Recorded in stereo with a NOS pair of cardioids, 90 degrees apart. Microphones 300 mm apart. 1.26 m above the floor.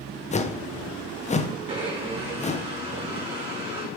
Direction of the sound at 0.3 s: 25° left.